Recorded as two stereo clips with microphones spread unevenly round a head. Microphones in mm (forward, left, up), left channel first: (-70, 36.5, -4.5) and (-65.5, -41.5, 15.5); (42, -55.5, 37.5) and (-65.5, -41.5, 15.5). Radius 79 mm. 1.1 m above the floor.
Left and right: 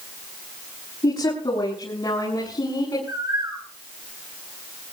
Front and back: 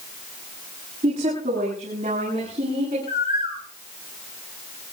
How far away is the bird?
About 8 m.